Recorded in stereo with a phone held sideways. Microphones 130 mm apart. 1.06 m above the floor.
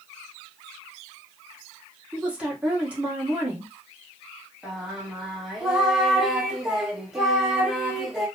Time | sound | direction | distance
2.1 | a woman speaking | 10° right (ahead or behind) | 1.1 m
4.6 | singing | 5° right (ahead or behind) | 0.8 m